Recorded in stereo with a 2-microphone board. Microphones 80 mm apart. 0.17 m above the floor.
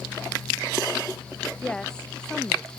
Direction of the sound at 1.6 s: 10° left (ahead or behind).